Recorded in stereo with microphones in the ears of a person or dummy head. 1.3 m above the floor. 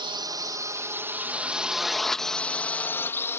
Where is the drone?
20° right (ahead or behind); by 3.4 s 15° left (ahead or behind).